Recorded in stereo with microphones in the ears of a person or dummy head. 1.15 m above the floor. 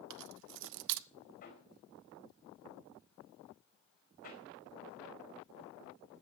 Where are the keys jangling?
55° right (ahead or behind), 0.5 m.